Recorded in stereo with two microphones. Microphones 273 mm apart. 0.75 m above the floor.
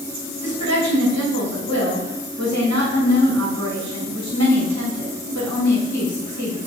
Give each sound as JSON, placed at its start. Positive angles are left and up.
{"t": 0.4, "sound": "a woman speaking", "side_deg": -75, "distance_m": 3.0}